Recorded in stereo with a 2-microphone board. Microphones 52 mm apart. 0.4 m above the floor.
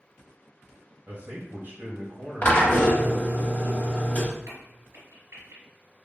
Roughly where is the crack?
Right.